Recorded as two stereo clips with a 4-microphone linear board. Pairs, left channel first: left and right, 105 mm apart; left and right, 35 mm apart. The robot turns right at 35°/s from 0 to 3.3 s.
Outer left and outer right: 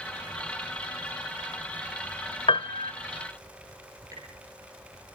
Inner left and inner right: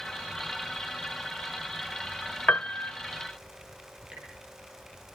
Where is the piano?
50° left (ahead or behind), 0.9 m; by 2.9 s 45° left (ahead or behind), 0.9 m.